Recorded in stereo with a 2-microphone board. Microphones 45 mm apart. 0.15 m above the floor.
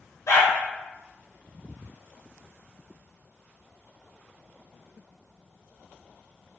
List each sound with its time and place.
0.3 s a dog barking: 75° left (ahead or behind), 1.4 m